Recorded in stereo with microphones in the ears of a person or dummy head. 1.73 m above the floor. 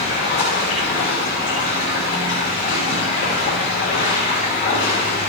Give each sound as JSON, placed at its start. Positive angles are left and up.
{"t": 0.0, "sound": "running water", "side_deg": 40, "distance_m": 5.5}